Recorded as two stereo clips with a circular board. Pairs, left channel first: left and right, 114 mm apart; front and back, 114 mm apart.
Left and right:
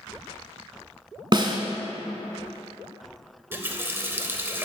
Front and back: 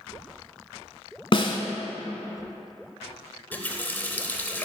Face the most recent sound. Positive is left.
turn(degrees=-50)